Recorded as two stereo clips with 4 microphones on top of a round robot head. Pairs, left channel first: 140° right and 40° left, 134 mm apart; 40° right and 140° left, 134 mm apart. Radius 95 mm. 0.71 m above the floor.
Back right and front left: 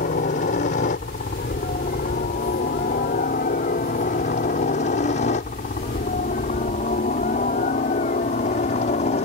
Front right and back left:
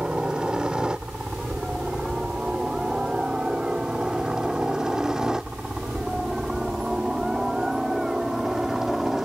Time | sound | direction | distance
0.0 | a helicopter | 135° right | ?